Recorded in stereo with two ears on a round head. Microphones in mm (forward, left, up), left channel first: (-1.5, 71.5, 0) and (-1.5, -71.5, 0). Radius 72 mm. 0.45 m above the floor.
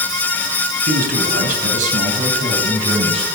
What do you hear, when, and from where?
0.9 s a man speaking: 65° right (ahead or behind), 3.5 m; by 3.3 s 35° right (ahead or behind), 4 m